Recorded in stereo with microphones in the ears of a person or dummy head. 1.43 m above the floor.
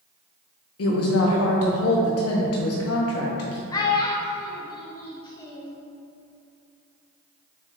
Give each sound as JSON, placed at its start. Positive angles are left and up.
{"t": 0.8, "sound": "a woman speaking", "side_deg": 70, "distance_m": 0.5}
{"t": 3.7, "sound": "a child speaking", "side_deg": 20, "distance_m": 0.5}